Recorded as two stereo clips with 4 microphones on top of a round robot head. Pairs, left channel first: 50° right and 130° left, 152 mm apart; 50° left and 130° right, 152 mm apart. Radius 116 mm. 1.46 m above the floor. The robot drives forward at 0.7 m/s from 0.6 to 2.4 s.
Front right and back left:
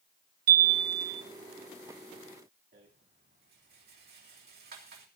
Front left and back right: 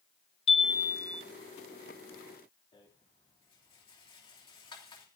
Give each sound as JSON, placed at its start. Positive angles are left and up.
{"t": 0.5, "sound": "a chime", "azimuth_deg": 105, "distance_m": 0.6}
{"t": 2.7, "sound": "a rattle", "azimuth_deg": 110, "distance_m": 3.0}